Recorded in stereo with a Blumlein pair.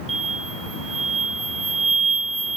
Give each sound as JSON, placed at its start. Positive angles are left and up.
{"t": 0.1, "sound": "an explosion", "azimuth_deg": -15, "distance_m": 1.4}